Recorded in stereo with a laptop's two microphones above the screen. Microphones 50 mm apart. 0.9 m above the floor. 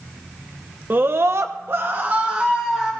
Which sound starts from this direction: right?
A scream, at 0.9 s.